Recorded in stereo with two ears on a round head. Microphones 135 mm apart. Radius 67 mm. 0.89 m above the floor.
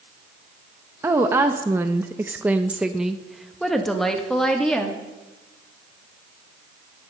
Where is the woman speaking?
15° right (ahead or behind), 1.0 m; by 5.0 s 5° left (ahead or behind), 1.9 m.